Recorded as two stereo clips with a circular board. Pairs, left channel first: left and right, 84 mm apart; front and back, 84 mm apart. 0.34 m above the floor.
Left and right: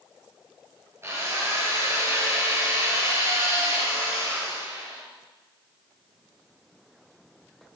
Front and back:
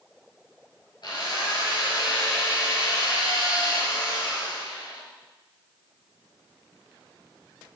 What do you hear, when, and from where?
1.0 s a drill: 35° right, 4 m